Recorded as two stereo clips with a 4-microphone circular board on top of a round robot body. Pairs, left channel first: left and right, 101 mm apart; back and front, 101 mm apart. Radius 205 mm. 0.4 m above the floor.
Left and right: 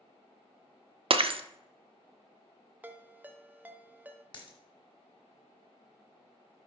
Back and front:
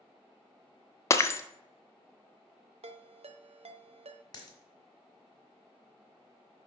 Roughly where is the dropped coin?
Behind left.